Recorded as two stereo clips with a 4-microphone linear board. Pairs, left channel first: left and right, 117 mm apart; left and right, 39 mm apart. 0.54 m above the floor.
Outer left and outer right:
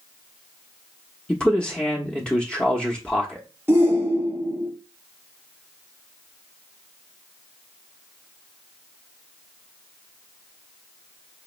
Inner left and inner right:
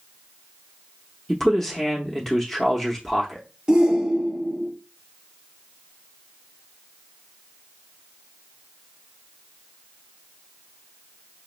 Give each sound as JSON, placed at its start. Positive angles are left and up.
{"t": 1.3, "sound": "a man speaking", "side_deg": 10, "distance_m": 0.8}
{"t": 3.7, "sound": "a shout", "side_deg": -20, "distance_m": 1.4}